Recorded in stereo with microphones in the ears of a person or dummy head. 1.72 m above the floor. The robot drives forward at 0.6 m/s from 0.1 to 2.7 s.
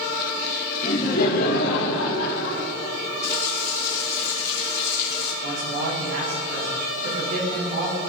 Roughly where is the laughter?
Left.